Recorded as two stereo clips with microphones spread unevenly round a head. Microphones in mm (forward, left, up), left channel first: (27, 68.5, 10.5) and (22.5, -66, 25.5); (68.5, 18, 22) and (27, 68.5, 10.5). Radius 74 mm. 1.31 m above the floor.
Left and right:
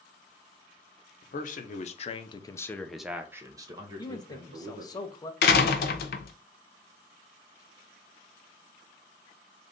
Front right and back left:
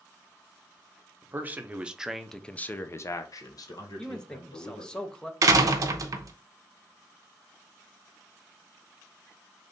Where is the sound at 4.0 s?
25° left, 0.7 m.